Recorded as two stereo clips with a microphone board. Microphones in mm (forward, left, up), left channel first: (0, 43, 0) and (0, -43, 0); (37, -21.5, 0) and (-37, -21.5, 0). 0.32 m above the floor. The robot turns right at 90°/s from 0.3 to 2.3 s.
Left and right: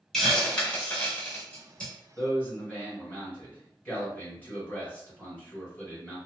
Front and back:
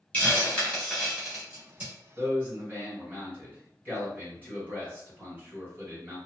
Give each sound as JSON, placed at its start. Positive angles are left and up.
{"t": 0.1, "sound": "a hiss", "azimuth_deg": 5, "distance_m": 1.0}
{"t": 2.2, "sound": "a man speaking", "azimuth_deg": 135, "distance_m": 1.7}